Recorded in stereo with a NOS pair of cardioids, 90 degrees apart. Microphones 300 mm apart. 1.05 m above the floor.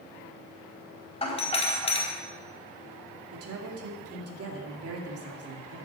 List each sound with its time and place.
1.2 s a doorbell: 20° left, 4 m
3.3 s a woman speaking: 55° right, 2.5 m